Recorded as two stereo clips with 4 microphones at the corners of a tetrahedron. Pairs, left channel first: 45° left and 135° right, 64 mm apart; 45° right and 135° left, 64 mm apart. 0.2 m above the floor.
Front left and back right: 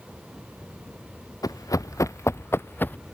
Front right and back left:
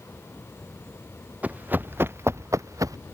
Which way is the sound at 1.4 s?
65° left.